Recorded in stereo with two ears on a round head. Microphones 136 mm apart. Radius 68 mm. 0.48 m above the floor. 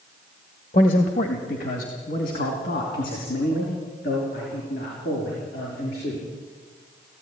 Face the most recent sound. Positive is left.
turn(degrees=70)  # may be behind; listen again after turning